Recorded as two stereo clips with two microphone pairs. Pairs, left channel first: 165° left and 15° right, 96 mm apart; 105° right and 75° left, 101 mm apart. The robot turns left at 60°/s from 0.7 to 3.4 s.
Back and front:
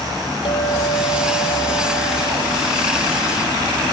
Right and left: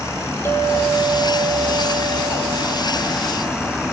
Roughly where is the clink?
Behind.